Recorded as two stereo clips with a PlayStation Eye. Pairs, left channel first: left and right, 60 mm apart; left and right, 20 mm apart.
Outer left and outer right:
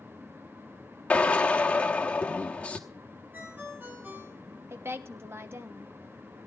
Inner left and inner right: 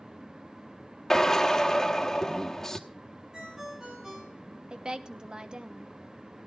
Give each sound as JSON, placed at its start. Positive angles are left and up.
{"t": 1.1, "sound": "a drill", "side_deg": 25, "distance_m": 1.0}
{"t": 3.3, "sound": "a ringtone", "side_deg": -35, "distance_m": 4.5}
{"t": 4.7, "sound": "a woman speaking", "side_deg": -45, "distance_m": 1.0}